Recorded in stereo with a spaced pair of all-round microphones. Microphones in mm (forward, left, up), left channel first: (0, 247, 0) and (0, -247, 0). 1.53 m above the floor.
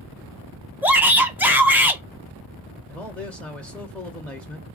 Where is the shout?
5° right (ahead or behind), 1.2 m.